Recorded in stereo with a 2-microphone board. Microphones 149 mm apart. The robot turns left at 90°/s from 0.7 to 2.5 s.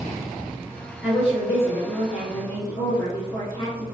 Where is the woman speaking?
175° left, 1.7 m; by 3.8 s 45° left, 1.7 m.